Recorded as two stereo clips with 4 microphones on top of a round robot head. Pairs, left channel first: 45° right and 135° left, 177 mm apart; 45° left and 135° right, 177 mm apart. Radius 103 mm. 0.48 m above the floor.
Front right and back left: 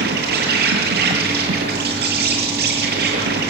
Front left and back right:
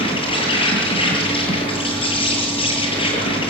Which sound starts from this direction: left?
An insect, at 0.0 s.